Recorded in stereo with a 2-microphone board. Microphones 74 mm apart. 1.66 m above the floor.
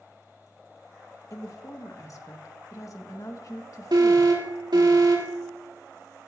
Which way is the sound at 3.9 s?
70° right (ahead or behind).